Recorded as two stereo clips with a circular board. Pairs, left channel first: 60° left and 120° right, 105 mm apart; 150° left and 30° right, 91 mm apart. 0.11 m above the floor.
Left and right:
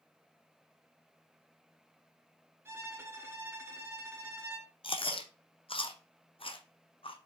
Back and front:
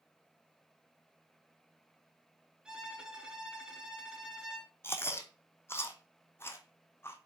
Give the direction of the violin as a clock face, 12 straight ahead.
3 o'clock.